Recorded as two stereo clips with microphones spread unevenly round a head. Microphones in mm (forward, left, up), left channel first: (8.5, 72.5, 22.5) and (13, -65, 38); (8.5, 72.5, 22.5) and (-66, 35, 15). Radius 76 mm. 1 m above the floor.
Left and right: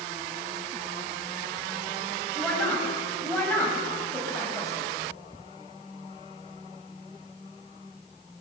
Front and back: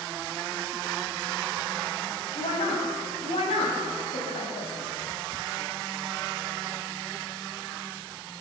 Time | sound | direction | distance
2.4 | a woman speaking | 10° left | 6.5 m